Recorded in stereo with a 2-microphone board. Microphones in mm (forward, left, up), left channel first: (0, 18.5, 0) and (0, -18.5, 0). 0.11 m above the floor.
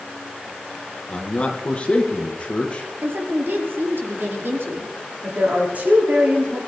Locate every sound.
1.1 s a man speaking: 35° left (ahead or behind), 3 m
3.0 s a woman speaking: 75° right (ahead or behind), 5.5 m
5.2 s a woman speaking: 45° right (ahead or behind), 7 m